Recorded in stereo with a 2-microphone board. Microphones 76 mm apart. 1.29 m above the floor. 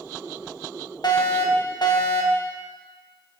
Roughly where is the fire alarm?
Left.